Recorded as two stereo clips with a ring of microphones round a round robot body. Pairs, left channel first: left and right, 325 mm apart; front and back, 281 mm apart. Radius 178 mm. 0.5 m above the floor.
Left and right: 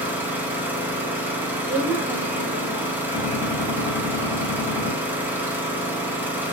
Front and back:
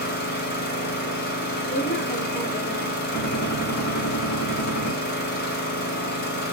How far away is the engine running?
About 0.8 m.